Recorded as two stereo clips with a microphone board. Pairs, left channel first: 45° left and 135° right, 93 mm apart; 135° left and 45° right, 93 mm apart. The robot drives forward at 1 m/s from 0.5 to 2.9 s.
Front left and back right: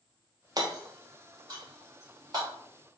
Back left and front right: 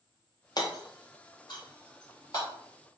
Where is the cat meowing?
No cat meowing in this recording.